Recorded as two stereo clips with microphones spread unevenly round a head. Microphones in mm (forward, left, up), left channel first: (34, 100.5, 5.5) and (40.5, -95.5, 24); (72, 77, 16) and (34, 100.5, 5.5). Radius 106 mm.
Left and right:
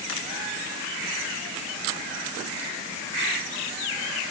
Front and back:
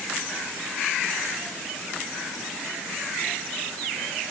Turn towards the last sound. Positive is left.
No sound to turn to.